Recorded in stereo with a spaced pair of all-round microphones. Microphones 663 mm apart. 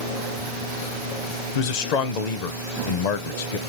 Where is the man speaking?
75° left (ahead or behind), 0.7 m.